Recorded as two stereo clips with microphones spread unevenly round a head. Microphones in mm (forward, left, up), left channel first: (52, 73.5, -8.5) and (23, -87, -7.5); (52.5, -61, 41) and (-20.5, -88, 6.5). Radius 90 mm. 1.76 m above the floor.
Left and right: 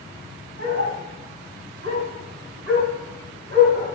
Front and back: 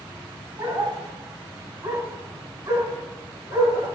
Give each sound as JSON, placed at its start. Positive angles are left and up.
{"t": 0.6, "sound": "a dog barking", "azimuth_deg": -125, "distance_m": 5.0}